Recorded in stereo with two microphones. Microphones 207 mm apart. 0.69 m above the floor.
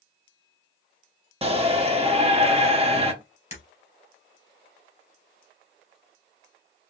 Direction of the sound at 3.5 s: 30° left (ahead or behind).